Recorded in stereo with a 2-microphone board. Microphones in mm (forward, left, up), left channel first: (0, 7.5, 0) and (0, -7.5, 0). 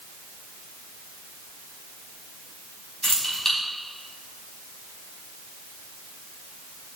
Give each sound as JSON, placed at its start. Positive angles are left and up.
{"t": 3.0, "sound": "keys jangling", "side_deg": 30, "distance_m": 4.5}